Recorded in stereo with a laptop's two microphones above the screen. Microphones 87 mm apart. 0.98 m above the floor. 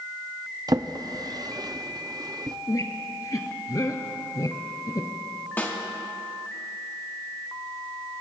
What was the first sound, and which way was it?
A drawer, 45° right (ahead or behind).